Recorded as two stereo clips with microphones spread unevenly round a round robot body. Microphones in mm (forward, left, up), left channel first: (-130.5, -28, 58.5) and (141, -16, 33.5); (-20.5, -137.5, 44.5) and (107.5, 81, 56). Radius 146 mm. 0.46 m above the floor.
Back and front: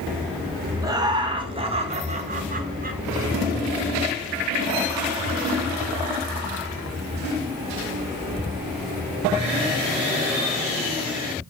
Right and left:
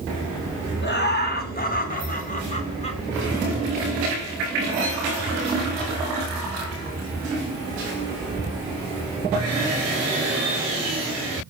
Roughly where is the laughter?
Right.